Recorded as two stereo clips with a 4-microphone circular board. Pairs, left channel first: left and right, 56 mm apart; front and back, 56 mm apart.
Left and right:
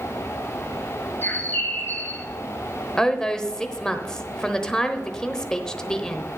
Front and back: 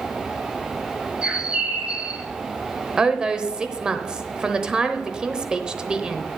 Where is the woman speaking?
145° left, 0.9 m.